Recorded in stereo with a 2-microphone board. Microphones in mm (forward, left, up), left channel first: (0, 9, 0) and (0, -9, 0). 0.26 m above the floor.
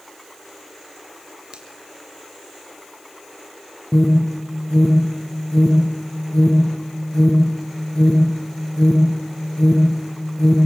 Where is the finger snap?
70° right (ahead or behind), 3.5 m.